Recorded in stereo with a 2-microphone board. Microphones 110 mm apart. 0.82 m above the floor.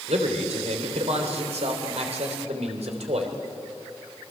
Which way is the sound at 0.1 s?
80° right.